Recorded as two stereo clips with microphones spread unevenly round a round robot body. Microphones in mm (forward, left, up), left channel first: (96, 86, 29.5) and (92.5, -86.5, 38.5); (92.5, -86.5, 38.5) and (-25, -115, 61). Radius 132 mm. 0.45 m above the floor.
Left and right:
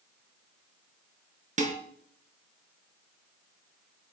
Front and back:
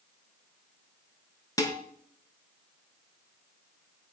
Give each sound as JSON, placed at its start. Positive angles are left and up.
{"t": 1.6, "sound": "dishes clattering", "azimuth_deg": -45, "distance_m": 4.5}